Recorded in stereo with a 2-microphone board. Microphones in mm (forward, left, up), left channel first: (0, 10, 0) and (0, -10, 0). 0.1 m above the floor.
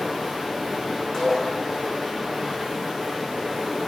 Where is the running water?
20° right (ahead or behind), 1.3 m.